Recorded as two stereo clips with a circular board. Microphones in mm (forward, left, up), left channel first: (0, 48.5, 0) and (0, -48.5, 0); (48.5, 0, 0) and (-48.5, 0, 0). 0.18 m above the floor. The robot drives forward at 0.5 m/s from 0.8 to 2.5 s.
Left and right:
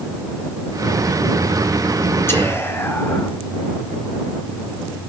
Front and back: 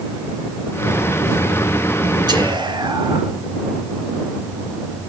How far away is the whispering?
About 2.5 m.